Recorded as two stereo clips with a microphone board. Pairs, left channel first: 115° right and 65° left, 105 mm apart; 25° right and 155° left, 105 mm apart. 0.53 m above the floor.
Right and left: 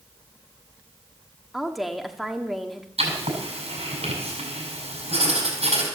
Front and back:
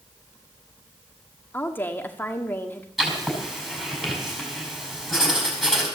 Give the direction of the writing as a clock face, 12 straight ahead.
10 o'clock.